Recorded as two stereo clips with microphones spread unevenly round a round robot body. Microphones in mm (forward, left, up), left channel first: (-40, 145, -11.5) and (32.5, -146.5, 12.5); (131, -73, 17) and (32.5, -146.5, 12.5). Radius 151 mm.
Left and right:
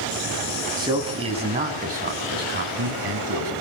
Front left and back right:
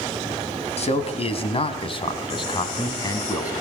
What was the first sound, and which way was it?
A man speaking, straight ahead.